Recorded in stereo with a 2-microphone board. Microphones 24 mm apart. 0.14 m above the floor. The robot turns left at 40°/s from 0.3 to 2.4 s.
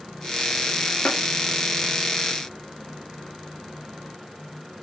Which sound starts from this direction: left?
Tapping, at 1.1 s.